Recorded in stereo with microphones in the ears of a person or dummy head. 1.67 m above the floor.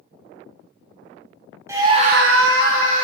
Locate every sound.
1.7 s a scream: 10° right (ahead or behind), 0.8 m; by 3.0 s 45° right (ahead or behind), 1.1 m